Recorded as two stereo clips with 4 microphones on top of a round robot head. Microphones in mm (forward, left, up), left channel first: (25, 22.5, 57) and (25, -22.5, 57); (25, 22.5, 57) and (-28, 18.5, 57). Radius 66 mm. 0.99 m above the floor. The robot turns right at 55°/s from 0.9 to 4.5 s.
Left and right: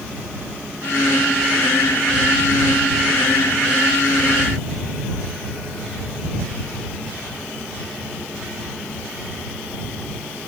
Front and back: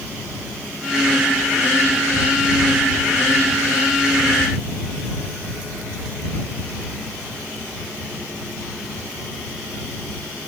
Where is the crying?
I don't hear crying.